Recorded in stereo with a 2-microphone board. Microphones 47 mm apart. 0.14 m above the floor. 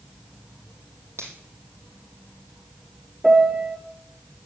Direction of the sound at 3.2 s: 10° right (ahead or behind).